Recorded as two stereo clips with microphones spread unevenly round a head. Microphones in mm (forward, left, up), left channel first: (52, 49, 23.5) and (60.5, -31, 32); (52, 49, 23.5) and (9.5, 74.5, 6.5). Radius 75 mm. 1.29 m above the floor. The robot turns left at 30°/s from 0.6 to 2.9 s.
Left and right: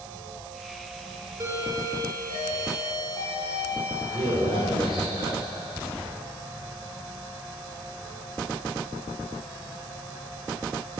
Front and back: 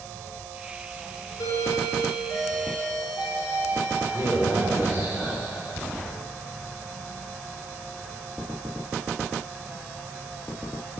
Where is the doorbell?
25° right, 5.5 m; by 5.8 s 70° right, 5.5 m.